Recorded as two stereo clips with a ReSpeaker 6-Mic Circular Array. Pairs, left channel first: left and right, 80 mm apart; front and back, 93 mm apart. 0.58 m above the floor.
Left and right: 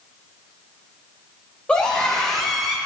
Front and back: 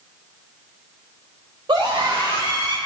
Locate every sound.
1.7 s a scream: 165° left, 2.5 m; by 2.8 s 170° right, 1.4 m